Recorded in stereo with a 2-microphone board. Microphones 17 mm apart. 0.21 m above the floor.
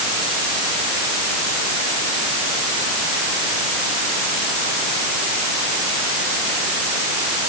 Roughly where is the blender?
I don't hear a blender.